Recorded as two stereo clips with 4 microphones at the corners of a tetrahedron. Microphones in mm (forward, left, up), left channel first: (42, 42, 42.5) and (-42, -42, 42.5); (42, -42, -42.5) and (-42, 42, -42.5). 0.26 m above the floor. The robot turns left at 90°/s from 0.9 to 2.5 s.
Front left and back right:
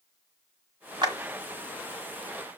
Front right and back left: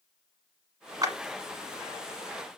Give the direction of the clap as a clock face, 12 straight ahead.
6 o'clock.